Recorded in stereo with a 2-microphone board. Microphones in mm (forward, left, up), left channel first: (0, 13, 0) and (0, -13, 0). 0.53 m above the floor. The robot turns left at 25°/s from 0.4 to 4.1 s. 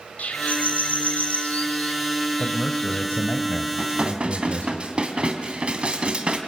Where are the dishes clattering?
55° right (ahead or behind), 2.5 m; by 6.4 s 45° right (ahead or behind), 2.5 m.